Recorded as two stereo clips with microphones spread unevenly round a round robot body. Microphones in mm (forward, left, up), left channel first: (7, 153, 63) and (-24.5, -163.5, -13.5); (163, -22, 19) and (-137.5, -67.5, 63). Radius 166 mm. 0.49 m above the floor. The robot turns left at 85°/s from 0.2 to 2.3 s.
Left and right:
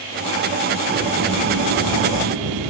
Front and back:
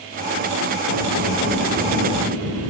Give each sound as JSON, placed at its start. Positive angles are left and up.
{"t": 0.9, "sound": "a sliding door", "azimuth_deg": -5, "distance_m": 5.0}